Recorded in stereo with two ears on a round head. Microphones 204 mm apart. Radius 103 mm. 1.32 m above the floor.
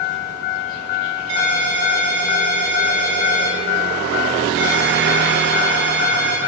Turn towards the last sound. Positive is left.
turn(degrees=-60)  # may be behind; listen again after turning